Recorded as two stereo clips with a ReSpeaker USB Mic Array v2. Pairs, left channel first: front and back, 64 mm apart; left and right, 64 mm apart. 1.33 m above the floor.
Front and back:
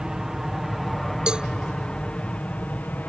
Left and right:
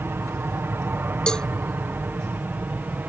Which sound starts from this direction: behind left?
A cowbell, at 1.3 s.